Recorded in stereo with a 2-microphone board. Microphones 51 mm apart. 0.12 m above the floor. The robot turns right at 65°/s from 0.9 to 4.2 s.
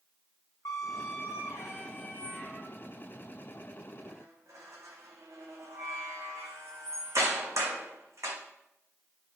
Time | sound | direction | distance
0.7 | a squeak | 70° left (ahead or behind) | 1.6 m